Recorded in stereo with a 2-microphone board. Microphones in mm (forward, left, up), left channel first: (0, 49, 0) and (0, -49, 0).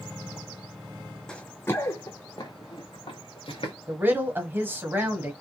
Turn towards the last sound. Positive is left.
turn(degrees=-25)  # may be behind; listen again after turning